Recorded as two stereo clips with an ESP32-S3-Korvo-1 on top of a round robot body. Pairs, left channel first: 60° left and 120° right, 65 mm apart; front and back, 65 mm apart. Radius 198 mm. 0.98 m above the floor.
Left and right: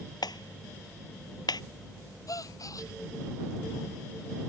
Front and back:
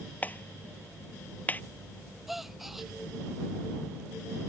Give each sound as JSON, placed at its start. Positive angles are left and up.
{"t": 0.2, "sound": "a clap", "azimuth_deg": 65}
{"t": 2.3, "sound": "a gasp", "azimuth_deg": 90}